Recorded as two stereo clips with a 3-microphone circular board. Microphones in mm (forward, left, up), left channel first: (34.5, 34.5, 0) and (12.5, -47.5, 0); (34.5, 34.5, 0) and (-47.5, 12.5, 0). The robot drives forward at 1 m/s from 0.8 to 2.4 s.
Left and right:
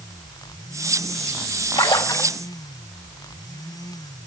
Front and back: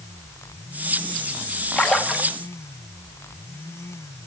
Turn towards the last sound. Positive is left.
turn(degrees=120)